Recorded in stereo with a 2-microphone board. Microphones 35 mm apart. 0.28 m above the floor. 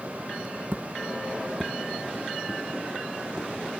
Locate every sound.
0.7 s footsteps: 55° right (ahead or behind), 0.9 m; by 3.5 s 15° left (ahead or behind), 3.5 m